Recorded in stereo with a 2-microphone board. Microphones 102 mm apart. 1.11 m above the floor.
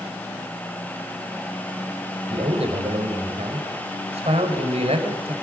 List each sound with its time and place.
2.3 s a man speaking: 85° right, 4.5 m